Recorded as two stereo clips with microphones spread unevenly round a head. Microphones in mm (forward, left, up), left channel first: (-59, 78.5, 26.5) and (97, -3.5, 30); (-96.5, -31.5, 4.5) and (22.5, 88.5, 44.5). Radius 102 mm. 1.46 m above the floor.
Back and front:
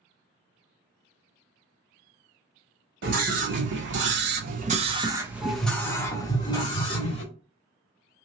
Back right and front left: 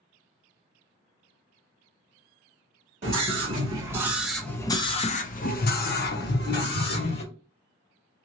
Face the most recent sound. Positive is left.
turn(degrees=-150)